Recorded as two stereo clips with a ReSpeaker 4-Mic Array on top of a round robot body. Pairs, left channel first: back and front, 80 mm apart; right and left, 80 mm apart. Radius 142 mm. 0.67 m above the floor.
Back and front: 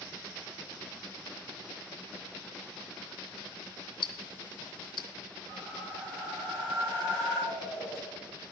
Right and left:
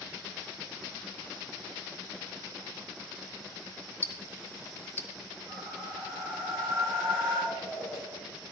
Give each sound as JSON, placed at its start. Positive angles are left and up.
{"t": 4.0, "sound": "ticking", "azimuth_deg": -160, "distance_m": 0.5}
{"t": 5.5, "sound": "a whoosh", "azimuth_deg": 35, "distance_m": 7.5}